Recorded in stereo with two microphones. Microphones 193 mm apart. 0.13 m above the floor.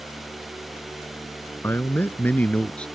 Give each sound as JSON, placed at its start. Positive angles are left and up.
{"t": 1.6, "sound": "a man speaking", "side_deg": 10}